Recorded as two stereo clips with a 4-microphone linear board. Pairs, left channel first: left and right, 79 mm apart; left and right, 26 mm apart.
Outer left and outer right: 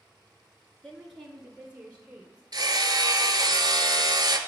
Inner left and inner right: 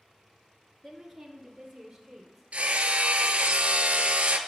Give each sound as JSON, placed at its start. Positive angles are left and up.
{"t": 0.8, "sound": "a woman speaking", "side_deg": 0, "distance_m": 1.3}
{"t": 2.5, "sound": "hammering", "side_deg": -60, "distance_m": 0.7}